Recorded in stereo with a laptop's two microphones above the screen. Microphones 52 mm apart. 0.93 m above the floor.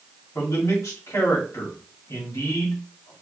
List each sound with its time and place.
0.3 s a man speaking: 70° left (ahead or behind), 2.5 m